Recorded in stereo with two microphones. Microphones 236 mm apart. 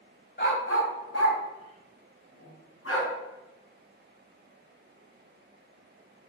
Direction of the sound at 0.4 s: 45° left (ahead or behind).